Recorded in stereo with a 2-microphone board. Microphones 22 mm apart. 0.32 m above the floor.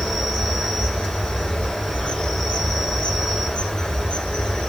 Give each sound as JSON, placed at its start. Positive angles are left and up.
{"t": 0.0, "sound": "an insect", "side_deg": 45, "distance_m": 3.0}